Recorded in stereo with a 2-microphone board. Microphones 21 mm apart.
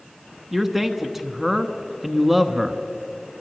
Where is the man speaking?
10° right (ahead or behind), 1.0 m.